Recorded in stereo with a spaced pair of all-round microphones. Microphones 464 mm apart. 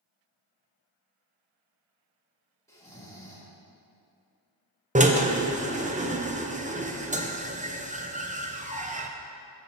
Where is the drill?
15° right (ahead or behind), 0.6 m.